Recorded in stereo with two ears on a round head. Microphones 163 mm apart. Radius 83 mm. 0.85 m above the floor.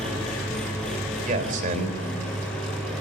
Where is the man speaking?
45° right (ahead or behind), 4 m.